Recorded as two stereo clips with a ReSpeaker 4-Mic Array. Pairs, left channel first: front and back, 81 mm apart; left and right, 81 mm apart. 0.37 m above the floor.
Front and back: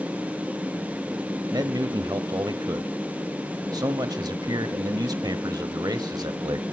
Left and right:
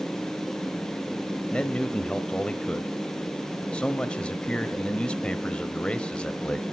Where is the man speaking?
165° left, 1.3 m.